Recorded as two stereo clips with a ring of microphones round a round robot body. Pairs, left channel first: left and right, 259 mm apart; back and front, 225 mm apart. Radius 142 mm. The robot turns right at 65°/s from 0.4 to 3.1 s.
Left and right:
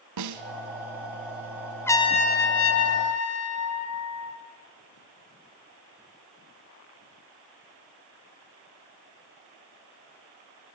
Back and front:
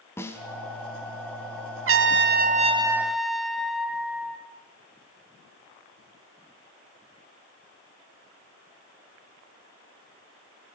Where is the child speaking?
I don't hear a child speaking.